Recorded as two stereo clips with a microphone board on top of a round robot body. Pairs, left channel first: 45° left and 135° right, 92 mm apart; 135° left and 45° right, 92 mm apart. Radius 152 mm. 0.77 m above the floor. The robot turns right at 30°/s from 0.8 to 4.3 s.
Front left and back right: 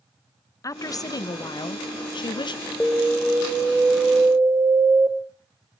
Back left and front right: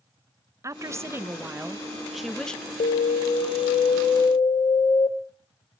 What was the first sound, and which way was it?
A woman speaking, straight ahead.